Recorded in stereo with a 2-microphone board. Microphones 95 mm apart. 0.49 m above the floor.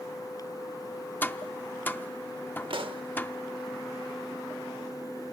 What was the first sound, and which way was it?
Tapping, 20° left (ahead or behind).